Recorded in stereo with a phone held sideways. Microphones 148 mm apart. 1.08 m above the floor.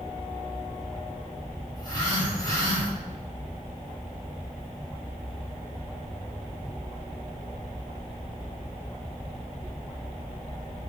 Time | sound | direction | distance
1.8 | a phone buzzing | 30° left (ahead or behind) | 7.5 m